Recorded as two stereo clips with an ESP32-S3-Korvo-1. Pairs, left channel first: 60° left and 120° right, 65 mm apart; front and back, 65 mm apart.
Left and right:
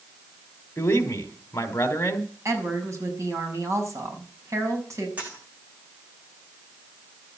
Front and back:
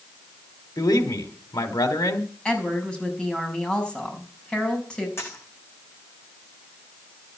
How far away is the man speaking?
About 3.5 m.